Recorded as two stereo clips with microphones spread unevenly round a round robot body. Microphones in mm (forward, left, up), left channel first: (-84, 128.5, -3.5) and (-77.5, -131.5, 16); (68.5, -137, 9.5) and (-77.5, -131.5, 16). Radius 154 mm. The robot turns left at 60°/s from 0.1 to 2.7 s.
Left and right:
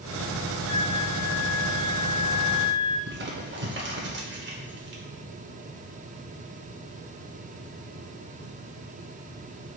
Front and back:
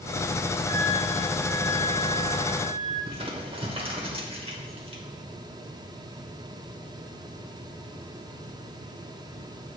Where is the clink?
I don't hear a clink.